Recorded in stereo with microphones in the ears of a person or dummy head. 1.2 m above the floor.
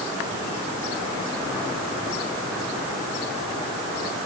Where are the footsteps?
No footsteps in this recording.